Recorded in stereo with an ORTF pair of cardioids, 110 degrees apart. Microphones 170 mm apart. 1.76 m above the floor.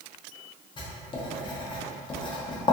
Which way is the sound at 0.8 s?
30° left.